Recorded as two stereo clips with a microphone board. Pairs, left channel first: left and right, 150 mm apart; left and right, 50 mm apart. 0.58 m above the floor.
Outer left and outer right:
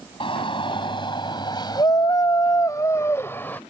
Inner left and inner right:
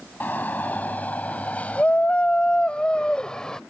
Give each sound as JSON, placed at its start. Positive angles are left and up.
{"t": 0.2, "sound": "a shout", "side_deg": 35}